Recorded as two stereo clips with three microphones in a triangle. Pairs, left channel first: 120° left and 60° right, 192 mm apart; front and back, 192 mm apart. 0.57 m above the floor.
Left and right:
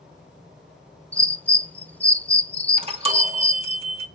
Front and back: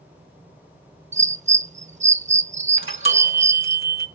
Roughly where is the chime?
Ahead.